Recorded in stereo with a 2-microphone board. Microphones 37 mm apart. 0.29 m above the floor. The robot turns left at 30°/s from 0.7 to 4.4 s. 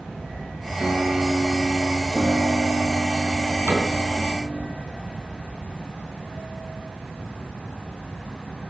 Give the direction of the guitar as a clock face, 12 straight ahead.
4 o'clock.